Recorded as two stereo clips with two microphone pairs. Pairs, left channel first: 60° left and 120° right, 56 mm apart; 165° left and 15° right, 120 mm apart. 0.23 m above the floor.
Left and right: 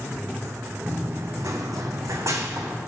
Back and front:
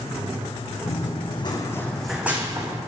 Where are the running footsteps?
170° right, 1.1 m; by 2.8 s 75° right, 1.2 m.